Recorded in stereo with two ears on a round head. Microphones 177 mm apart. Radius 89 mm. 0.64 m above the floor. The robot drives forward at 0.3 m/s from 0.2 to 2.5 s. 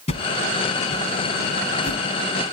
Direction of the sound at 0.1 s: 35° left (ahead or behind).